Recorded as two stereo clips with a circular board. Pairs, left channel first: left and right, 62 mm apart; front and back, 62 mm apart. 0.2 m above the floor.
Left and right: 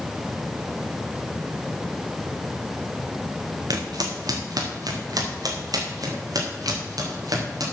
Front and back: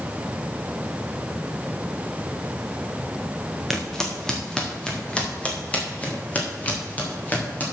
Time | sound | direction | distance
3.7 | footsteps | 90° right | 2.0 m